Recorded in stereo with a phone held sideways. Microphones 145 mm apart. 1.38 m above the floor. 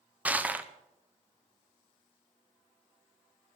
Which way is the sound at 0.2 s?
10° right (ahead or behind).